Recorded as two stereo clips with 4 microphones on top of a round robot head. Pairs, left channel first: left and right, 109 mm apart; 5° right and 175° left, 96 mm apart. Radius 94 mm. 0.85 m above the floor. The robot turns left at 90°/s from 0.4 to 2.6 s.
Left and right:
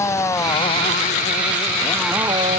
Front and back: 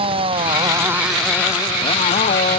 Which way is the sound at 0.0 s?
155° left.